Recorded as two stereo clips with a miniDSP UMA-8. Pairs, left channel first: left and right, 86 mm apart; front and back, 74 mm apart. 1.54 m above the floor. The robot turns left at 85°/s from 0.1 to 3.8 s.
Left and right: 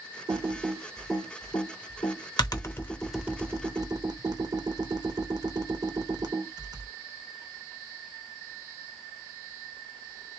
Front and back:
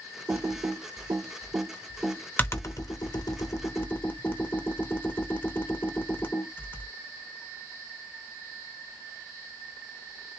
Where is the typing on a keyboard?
120° right, 0.7 m; by 6.9 s 60° right, 0.7 m.